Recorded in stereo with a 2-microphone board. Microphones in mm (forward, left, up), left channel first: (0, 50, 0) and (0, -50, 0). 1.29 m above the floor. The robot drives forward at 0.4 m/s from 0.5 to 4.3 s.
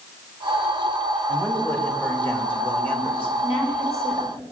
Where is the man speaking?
25° left (ahead or behind), 2.5 m; by 3.3 s 20° left (ahead or behind), 3.5 m.